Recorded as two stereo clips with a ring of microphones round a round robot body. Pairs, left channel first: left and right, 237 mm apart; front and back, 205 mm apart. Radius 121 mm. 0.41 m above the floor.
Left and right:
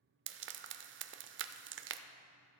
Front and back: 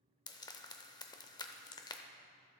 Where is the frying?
70° right, 0.5 m.